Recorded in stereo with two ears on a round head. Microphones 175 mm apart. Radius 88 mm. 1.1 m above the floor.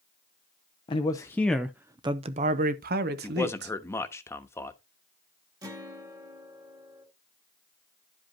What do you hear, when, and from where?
0.9 s a man speaking: 25° left (ahead or behind), 0.7 m; by 3.8 s 60° right (ahead or behind), 1.2 m
3.2 s a man speaking: 15° left (ahead or behind), 1.0 m
5.6 s a guitar: 20° right (ahead or behind), 1.8 m